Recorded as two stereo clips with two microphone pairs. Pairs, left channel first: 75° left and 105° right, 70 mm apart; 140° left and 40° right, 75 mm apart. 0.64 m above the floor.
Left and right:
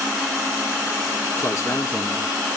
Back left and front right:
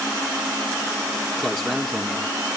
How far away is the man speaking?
About 1.2 m.